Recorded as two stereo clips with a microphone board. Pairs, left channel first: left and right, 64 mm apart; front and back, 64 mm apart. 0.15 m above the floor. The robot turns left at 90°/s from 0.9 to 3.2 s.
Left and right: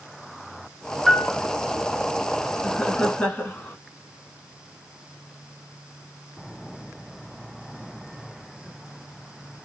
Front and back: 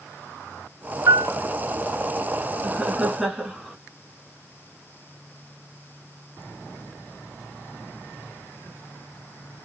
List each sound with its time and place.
1.1 s a piano: 165° right, 0.7 m; by 1.3 s 170° left, 0.7 m
2.6 s laughter: 150° left, 1.1 m; by 3.8 s 100° left, 1.1 m